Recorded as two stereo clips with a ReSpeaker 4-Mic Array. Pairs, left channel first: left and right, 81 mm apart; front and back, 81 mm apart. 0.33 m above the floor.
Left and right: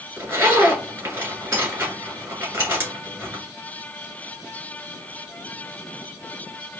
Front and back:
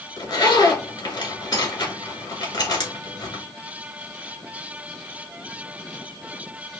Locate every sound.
0.2 s a zipper: 25° right, 2 m